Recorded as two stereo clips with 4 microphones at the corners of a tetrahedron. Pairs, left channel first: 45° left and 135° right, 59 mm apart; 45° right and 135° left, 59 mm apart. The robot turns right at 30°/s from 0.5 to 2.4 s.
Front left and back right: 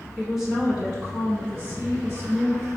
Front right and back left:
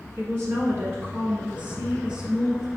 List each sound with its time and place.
0.2 s a woman speaking: 145° left, 1.5 m; by 2.7 s 155° right, 1.5 m